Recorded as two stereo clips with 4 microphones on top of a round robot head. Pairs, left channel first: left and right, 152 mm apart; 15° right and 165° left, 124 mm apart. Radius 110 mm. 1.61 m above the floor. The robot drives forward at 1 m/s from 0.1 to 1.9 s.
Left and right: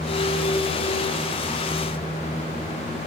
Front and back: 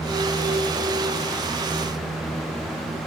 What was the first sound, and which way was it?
Only background noise.